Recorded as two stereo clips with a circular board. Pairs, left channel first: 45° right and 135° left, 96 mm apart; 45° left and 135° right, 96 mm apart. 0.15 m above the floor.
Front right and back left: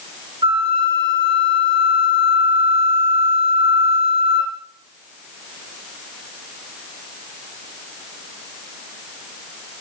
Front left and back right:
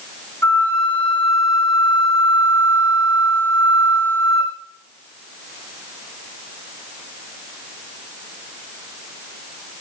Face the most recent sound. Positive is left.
turn(degrees=115)